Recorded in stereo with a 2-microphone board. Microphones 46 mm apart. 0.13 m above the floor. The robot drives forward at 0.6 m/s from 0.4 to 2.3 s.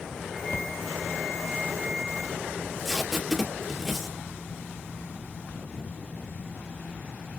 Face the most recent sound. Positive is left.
turn(degrees=5)  # may be behind; listen again after turning